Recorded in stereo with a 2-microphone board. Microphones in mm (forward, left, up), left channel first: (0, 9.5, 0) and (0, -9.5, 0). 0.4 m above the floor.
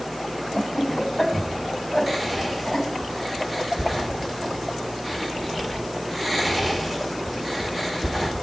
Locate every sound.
0.5 s laughter: 10° left (ahead or behind), 3 m
2.1 s whispering: 10° right (ahead or behind), 0.8 m